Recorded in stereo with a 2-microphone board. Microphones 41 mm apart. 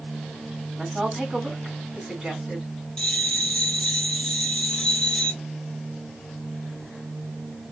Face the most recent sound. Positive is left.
turn(degrees=20)  # may be behind; listen again after turning